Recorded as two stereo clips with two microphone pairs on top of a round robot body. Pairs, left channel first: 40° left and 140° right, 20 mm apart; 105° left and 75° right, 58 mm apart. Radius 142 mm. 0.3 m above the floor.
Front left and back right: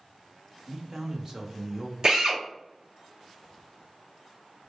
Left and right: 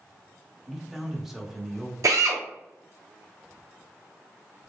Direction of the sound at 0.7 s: 160° right.